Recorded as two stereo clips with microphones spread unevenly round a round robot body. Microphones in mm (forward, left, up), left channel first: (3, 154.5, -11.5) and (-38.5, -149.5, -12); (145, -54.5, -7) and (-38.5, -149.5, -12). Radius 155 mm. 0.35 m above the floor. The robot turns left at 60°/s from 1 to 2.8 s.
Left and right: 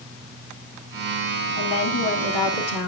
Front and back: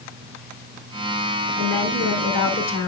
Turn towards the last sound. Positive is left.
turn(degrees=40)